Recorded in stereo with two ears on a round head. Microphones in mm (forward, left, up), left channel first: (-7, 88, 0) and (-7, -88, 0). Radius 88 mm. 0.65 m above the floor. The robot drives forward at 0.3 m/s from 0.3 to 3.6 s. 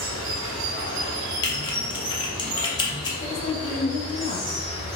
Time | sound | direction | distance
0.0 | running water | 75° right (ahead or behind) | 0.7 m
1.4 | typing on a keyboard | 25° left (ahead or behind) | 0.6 m
3.2 | a woman speaking | 30° left (ahead or behind) | 0.6 m